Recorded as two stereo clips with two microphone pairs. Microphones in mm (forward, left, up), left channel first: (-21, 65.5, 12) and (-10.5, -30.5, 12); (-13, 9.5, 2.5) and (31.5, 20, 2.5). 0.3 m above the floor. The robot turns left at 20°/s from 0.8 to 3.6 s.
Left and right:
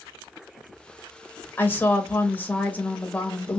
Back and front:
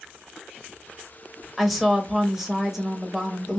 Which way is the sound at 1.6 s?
100° left.